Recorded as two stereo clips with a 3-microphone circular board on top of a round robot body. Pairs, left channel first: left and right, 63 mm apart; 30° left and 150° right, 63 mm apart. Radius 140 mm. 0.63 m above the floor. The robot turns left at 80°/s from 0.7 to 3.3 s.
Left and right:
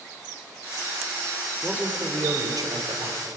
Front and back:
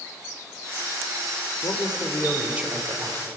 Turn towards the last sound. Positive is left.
turn(degrees=-135)